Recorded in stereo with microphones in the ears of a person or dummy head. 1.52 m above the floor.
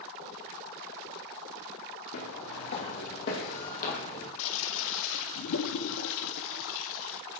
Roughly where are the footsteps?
Left.